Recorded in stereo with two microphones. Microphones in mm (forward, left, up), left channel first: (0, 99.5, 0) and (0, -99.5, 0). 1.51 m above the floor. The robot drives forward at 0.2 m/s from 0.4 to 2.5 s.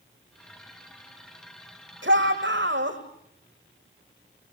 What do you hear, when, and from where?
2.0 s a shout: 60° right (ahead or behind), 6 m